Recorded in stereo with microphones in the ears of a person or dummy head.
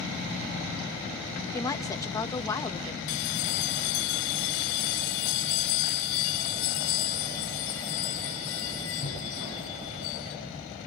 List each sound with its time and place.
1.5 s a woman speaking: 20° left (ahead or behind), 1.7 m
3.1 s a bell: 65° left (ahead or behind), 1.8 m